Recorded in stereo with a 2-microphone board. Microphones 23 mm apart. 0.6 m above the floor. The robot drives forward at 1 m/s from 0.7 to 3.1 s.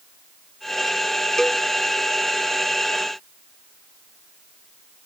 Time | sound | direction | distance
1.4 | a cowbell | 20° left (ahead or behind) | ?